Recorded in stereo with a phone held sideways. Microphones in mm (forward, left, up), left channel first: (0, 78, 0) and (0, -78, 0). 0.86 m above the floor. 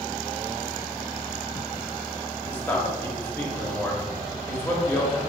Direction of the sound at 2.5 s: 10° left (ahead or behind).